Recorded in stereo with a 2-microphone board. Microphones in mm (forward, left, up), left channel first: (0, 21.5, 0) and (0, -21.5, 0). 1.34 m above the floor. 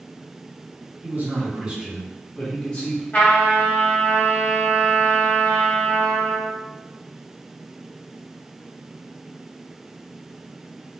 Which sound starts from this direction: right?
A man speaking, at 1.0 s.